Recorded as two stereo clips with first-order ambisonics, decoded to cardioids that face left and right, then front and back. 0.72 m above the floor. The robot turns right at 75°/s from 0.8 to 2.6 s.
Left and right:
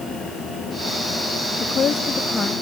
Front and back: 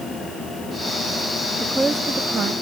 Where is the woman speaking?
85° left, 0.6 m; by 2.5 s 155° left, 0.6 m.